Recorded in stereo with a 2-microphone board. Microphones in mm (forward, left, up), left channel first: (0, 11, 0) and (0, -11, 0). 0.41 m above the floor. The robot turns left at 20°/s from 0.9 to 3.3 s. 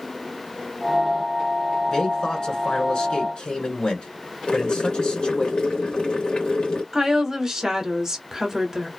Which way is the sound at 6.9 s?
25° right (ahead or behind).